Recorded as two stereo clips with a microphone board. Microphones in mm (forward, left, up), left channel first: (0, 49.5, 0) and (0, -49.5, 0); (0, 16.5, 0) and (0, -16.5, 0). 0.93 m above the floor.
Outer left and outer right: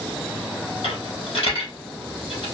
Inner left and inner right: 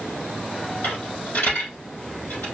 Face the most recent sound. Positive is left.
turn(degrees=65)  # may be behind; listen again after turning